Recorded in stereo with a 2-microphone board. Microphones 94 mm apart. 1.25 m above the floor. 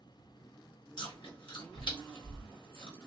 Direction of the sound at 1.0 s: 60° left (ahead or behind).